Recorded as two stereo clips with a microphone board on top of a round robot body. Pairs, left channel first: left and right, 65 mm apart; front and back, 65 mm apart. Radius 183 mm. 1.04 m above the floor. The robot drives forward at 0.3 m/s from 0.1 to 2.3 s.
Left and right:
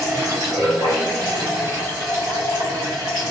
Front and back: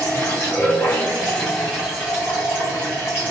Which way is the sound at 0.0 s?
55° right.